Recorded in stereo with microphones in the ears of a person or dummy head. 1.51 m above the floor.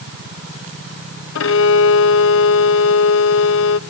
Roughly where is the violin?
Left.